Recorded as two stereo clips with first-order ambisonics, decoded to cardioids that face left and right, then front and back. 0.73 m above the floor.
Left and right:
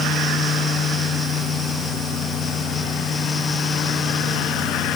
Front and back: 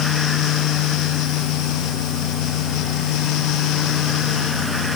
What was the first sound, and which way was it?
Only background noise.